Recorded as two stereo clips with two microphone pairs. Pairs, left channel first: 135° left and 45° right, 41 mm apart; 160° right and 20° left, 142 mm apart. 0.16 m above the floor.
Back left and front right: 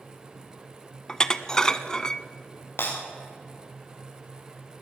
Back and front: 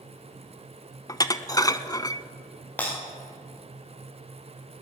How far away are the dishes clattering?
About 0.8 m.